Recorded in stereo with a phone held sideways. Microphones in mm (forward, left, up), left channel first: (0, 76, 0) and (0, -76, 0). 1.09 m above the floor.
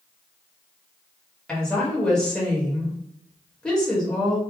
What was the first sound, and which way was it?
A woman speaking, 5° left (ahead or behind).